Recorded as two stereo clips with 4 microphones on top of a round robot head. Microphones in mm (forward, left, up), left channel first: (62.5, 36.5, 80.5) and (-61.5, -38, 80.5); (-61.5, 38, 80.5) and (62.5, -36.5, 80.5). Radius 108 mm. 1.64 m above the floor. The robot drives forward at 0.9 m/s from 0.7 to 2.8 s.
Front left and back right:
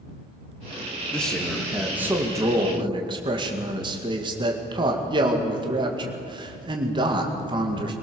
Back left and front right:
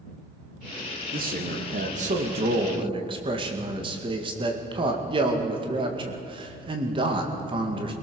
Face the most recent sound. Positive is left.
turn(degrees=-90)